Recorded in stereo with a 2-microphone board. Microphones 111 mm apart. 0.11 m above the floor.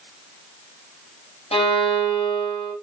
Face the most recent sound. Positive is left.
turn(degrees=60)  # may be behind; listen again after turning